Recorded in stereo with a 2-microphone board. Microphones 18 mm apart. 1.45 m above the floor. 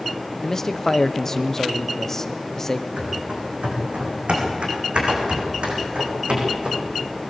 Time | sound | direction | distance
0.4 | a man speaking | 20° left (ahead or behind) | 0.9 m
3.0 | running footsteps | 75° right (ahead or behind) | 5 m